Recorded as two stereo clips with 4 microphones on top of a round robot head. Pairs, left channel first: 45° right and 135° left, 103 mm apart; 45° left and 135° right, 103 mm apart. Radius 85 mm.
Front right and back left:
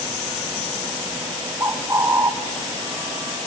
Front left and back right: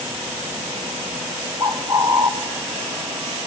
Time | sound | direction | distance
1.6 | a bird | 170° right | 0.8 m